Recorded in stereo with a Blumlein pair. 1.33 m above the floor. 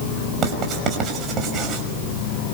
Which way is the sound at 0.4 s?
30° right.